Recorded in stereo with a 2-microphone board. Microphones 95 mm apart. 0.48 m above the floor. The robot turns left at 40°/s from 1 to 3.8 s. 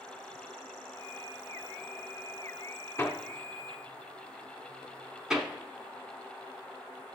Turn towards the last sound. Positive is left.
turn(degrees=-5)  # may be behind; listen again after turning